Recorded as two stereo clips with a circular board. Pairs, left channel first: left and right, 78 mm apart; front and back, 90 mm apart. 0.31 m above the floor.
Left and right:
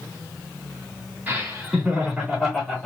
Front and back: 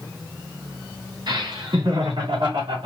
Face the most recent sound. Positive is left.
turn(degrees=175)